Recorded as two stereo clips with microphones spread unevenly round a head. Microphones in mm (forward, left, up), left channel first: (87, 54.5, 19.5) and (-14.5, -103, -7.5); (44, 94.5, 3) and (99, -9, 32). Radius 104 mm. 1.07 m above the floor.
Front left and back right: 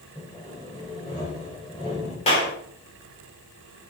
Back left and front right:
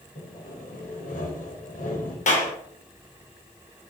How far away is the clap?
About 3.5 m.